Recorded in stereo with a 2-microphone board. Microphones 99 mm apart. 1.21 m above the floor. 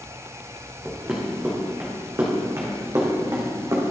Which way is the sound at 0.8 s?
15° right (ahead or behind).